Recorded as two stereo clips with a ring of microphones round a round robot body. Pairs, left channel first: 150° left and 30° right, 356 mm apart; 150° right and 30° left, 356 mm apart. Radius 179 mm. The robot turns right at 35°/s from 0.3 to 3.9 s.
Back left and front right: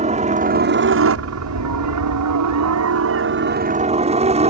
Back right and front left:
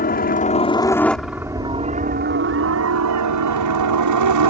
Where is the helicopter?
95° right; by 4.5 s 40° left.